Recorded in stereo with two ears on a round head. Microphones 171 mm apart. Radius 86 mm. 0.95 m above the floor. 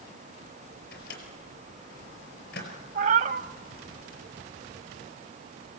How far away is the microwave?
About 4.5 m.